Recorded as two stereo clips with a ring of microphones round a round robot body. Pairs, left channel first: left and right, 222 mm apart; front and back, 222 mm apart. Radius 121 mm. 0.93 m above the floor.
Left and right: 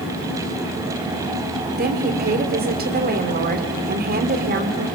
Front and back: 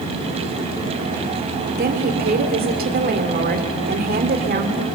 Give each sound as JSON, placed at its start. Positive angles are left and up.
{"t": 1.8, "sound": "a woman speaking", "azimuth_deg": -135, "distance_m": 2.5}